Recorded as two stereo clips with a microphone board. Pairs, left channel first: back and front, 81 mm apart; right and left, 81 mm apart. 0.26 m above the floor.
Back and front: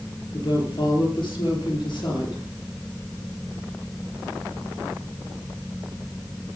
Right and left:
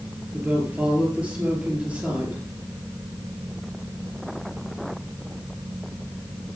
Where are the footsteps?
No footsteps in this recording.